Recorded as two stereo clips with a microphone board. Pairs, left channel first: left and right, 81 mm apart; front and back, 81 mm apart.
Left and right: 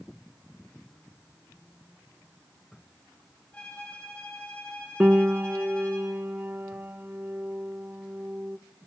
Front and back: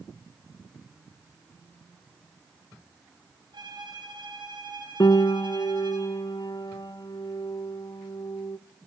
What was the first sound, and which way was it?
A violin, 160° left.